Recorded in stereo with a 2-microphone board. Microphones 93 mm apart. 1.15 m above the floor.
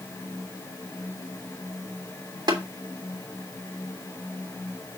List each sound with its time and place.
2.5 s tapping: 55° right (ahead or behind), 3 m